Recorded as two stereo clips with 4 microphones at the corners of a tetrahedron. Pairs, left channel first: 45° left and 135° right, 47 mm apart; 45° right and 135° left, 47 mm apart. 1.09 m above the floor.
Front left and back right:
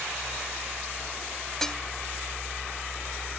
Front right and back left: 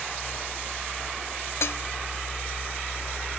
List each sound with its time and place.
1.6 s dishes clattering: 35° right